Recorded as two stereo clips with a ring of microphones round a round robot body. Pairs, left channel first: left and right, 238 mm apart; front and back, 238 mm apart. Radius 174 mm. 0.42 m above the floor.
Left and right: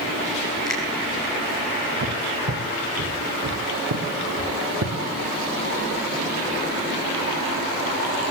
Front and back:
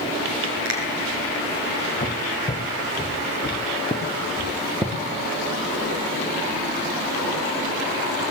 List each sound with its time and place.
0.7 s a finger snap: 170° left, 5.5 m
2.0 s footsteps: 60° right, 2 m; by 4.9 s 90° right, 3 m